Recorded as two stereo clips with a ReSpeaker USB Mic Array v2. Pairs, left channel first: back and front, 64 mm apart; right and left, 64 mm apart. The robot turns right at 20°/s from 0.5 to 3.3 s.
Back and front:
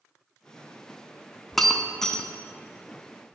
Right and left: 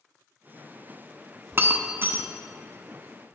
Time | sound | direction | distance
1.5 | breaking glass | 95° left | 0.5 m